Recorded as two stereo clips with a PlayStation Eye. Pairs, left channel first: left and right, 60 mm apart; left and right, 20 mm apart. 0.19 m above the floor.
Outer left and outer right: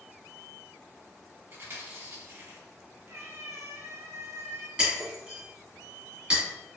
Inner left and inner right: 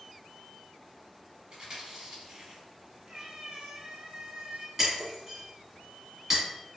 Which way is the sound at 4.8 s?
15° right (ahead or behind).